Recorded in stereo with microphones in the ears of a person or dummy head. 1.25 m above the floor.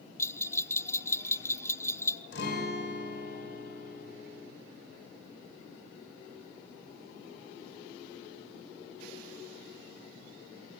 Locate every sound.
0.2 s a bell: 10° left (ahead or behind), 0.6 m
2.3 s a guitar: 65° left (ahead or behind), 5 m